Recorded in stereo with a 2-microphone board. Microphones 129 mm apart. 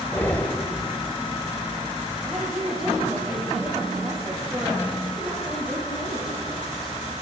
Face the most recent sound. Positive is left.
turn(degrees=0)  # may be behind; listen again after turning